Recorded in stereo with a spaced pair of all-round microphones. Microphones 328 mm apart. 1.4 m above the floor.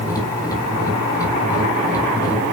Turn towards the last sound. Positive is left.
turn(degrees=10)  # may be behind; listen again after turning